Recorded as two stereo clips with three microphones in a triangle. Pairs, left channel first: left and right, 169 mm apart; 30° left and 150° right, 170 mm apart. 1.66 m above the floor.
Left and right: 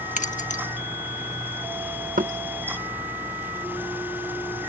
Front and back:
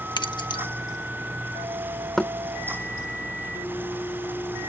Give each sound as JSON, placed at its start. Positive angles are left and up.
{"t": 0.2, "sound": "keys jangling", "azimuth_deg": 80}
{"t": 2.2, "sound": "knocking", "azimuth_deg": -55}